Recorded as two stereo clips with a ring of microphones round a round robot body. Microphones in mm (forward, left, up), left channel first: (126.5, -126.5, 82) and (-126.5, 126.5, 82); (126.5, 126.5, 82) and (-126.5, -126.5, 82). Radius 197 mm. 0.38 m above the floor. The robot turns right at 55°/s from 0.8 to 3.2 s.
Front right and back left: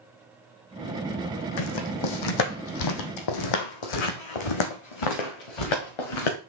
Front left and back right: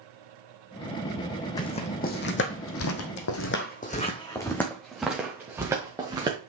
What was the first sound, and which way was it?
Footsteps, 35° right.